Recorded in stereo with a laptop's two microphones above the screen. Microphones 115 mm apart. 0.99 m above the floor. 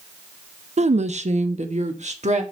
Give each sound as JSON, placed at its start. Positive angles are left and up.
{"t": 0.8, "sound": "a woman speaking", "side_deg": -70, "distance_m": 0.7}